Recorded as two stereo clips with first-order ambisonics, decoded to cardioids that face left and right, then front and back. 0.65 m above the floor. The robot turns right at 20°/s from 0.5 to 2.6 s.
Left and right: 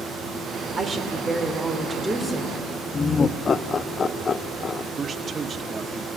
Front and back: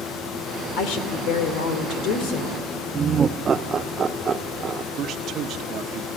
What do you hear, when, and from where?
0.8 s a woman speaking: 25° right, 2.5 m; by 2.6 s 10° left, 2.5 m
2.9 s laughter: 135° left, 0.5 m
4.9 s a man speaking: 150° right, 0.8 m